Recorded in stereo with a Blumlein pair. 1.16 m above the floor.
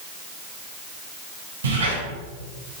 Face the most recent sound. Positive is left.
turn(degrees=-70)